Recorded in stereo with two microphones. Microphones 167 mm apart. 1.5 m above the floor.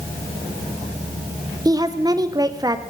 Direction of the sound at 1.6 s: 25° right (ahead or behind).